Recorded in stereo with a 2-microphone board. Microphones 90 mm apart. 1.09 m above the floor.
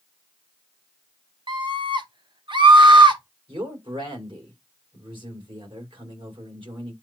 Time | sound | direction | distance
1.5 | a scream | 55° right (ahead or behind) | 1.4 m
3.5 | a man speaking | 60° right (ahead or behind) | 3 m